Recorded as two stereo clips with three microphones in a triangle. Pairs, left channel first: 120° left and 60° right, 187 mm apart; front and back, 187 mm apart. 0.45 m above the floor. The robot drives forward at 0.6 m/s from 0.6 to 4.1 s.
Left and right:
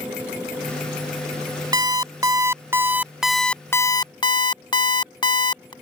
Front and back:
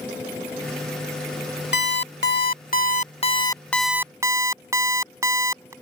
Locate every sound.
1.7 s an alarm clock: 10° left; by 5.7 s 130° left